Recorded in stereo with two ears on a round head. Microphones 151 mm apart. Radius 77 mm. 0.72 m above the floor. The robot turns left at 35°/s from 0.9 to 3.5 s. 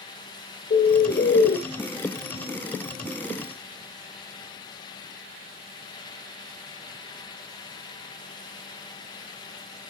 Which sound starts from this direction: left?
A bird, at 0.7 s.